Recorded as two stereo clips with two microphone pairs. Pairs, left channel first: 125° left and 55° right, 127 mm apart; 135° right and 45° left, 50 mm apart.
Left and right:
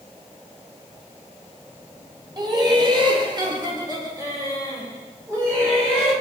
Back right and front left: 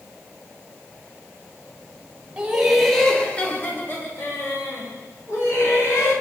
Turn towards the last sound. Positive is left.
turn(degrees=-130)